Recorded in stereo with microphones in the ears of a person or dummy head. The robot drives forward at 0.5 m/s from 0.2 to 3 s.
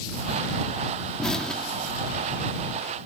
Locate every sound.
1.2 s an explosion: centre (ahead or behind)